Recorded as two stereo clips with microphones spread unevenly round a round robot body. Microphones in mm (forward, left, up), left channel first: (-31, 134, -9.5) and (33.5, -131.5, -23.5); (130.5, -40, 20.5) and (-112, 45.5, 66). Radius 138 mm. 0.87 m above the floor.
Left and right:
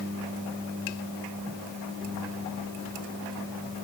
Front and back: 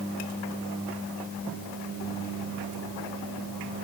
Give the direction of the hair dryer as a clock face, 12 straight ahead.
No hair dryer in this recording.